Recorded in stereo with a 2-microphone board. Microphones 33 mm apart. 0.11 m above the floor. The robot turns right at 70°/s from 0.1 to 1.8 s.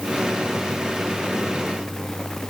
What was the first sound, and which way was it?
Only background noise.